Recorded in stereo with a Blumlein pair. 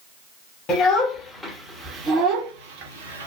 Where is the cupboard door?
No cupboard door in this recording.